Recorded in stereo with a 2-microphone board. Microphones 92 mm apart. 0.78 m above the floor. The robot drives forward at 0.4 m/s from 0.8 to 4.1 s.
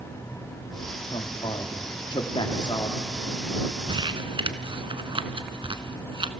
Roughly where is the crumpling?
Right.